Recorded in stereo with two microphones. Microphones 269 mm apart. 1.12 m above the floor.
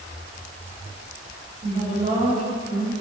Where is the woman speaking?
25° right (ahead or behind), 2 m.